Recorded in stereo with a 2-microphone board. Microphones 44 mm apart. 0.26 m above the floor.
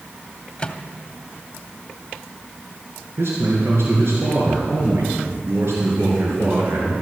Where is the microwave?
25° left (ahead or behind), 0.9 m.